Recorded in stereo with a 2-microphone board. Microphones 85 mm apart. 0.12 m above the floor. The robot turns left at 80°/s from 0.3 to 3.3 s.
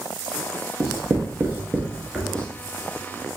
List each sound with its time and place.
0.8 s writing: 35° right (ahead or behind), 1.2 m; by 2.5 s 10° left (ahead or behind), 1.2 m